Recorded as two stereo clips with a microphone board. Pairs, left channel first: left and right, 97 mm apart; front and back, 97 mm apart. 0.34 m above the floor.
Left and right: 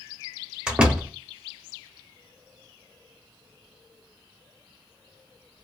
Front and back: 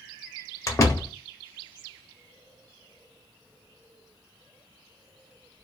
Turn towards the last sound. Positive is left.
turn(degrees=-20)